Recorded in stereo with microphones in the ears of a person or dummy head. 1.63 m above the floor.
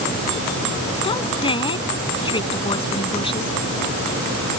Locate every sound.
1.0 s a woman speaking: 25° left (ahead or behind)